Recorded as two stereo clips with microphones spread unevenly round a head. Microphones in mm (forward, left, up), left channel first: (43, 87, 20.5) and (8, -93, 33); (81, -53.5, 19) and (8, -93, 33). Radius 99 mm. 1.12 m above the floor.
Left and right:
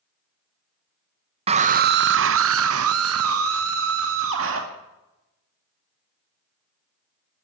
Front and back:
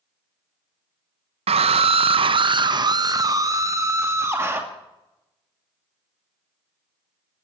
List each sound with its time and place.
1.5 s a scream: 165° right, 0.8 m; by 4.6 s 85° right, 2 m